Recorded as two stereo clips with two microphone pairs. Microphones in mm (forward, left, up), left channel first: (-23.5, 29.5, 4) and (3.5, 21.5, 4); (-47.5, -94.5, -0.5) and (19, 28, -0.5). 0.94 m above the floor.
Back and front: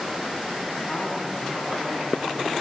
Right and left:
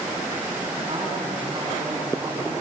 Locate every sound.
0.9 s a man speaking: 110° left, 9 m